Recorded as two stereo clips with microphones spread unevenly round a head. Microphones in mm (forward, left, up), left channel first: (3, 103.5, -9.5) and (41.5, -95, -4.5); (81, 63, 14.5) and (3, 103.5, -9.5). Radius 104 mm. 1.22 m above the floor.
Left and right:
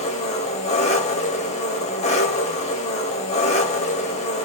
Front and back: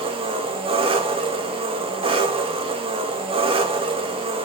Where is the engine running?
155° left, 1.1 m.